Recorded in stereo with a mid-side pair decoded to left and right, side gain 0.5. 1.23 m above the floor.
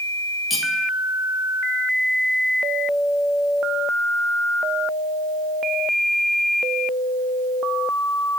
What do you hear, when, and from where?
0.5 s cutlery clinking: 30° left, 1.0 m